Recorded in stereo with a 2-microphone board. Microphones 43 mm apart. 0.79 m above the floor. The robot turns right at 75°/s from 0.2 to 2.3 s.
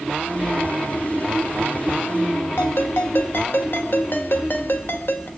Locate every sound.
2.6 s a ringtone: 60° left (ahead or behind), 2.0 m